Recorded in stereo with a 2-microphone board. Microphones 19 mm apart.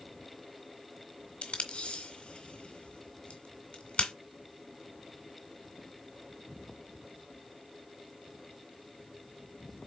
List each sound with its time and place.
1.4 s tape being pulled: 70° left (ahead or behind), 2 m